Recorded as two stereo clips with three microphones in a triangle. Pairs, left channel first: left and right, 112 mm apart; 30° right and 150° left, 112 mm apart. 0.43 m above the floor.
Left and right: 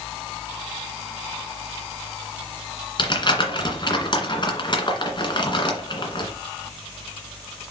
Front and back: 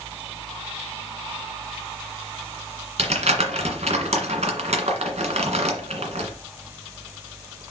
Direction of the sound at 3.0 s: 135° left.